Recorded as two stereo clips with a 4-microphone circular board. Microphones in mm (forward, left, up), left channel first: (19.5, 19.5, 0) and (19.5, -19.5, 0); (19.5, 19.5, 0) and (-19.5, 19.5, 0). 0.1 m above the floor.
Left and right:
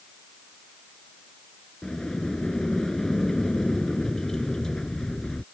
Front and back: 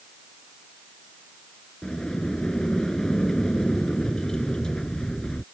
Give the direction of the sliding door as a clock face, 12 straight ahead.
11 o'clock.